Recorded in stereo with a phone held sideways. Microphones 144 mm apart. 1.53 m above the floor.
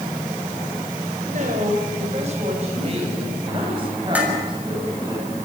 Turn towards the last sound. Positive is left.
turn(degrees=-10)  # may be behind; listen again after turning